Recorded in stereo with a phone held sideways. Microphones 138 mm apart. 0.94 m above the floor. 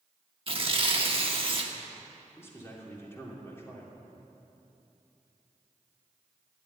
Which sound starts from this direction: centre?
A man speaking, at 2.4 s.